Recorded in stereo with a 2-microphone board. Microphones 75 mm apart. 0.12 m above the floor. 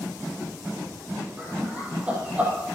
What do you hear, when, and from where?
1.4 s laughter: 20° right (ahead or behind), 3.5 m